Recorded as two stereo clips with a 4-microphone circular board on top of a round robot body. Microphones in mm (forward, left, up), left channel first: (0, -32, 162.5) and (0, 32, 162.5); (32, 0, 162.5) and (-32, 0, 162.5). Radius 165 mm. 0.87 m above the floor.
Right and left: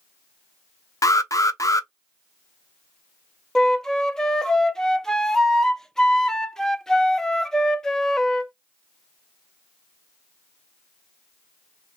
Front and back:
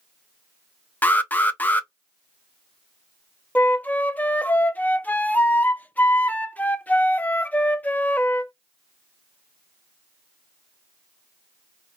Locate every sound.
1.0 s an alarm: 60° right, 0.6 m
3.5 s a flute: 20° right, 0.6 m